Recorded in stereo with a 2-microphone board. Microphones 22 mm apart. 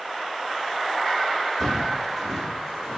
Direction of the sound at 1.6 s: Centre (ahead or behind).